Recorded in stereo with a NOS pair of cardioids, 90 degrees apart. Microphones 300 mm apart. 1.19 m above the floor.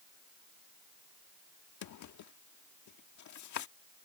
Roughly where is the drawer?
Ahead left.